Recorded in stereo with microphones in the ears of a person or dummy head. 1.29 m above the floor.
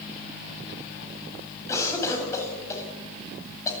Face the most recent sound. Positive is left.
turn(degrees=20)  # may be behind; listen again after turning